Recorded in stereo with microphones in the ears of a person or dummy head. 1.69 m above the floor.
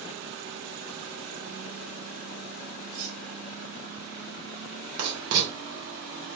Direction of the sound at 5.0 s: 70° right (ahead or behind).